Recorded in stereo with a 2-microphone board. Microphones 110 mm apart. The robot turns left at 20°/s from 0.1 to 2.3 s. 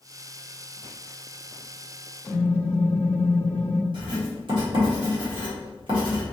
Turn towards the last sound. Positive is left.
turn(degrees=-50)  # may be behind; listen again after turning